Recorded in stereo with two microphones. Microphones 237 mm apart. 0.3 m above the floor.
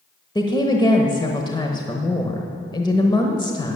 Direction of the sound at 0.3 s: 20° left (ahead or behind).